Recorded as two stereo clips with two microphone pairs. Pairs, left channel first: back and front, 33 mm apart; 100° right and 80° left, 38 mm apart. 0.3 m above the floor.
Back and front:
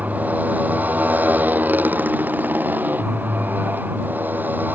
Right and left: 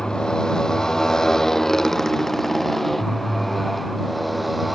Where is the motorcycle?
30° right; by 4.8 s 10° right.